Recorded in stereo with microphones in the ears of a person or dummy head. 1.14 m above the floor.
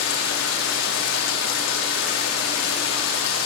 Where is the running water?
75° left (ahead or behind), 2 m.